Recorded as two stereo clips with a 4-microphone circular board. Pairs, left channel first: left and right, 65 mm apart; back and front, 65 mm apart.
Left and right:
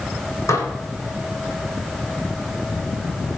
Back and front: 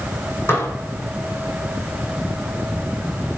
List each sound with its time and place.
0.5 s dishes clattering: 125° left, 5 m